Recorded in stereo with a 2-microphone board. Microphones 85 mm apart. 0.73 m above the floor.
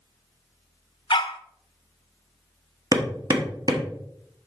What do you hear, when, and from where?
1.1 s a dog barking: 65° left (ahead or behind), 0.6 m
2.9 s hammering: 45° right (ahead or behind), 1.1 m